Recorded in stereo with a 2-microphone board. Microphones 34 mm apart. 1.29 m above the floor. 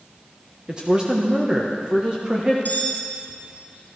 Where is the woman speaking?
25° right (ahead or behind), 1.4 m.